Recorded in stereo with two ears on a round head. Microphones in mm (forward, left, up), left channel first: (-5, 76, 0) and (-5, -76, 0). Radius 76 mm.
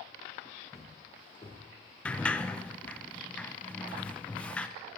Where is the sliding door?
5° left (ahead or behind), 0.6 m.